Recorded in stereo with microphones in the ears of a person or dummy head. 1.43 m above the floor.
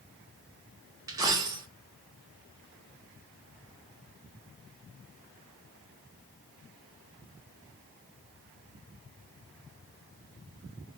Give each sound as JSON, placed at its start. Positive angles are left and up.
{"t": 1.1, "sound": "a dropped coin", "side_deg": -20, "distance_m": 0.7}